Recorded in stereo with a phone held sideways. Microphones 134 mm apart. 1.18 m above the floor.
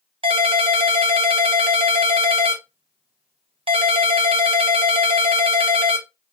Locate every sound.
0.2 s a ringtone: 40° right (ahead or behind), 0.8 m